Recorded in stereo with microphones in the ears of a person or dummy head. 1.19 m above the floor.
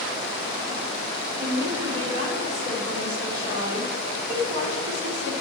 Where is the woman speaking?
75° right (ahead or behind), 3.5 m.